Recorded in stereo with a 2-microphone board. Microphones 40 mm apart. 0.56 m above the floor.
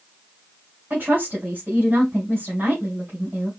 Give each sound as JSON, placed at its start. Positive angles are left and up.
{"t": 0.9, "sound": "a woman speaking", "side_deg": -45, "distance_m": 5.5}